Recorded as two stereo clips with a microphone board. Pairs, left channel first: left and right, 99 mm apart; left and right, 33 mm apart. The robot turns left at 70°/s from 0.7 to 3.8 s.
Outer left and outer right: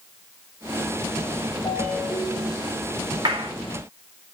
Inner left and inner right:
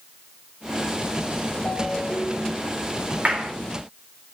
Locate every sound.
1.6 s a ringtone: 50° left, 7.5 m; by 2.7 s 20° right, 7.5 m
3.2 s a clap: 55° right (ahead or behind), 4 m; by 3.5 s 70° right (ahead or behind), 4 m